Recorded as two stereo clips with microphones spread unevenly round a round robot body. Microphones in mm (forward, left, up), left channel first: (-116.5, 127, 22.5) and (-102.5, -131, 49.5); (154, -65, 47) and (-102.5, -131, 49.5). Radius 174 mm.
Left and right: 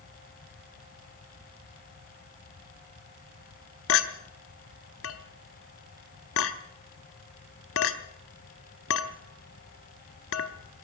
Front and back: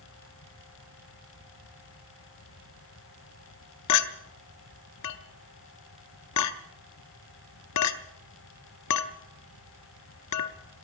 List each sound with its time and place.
3.9 s a clink: 50° left, 0.6 m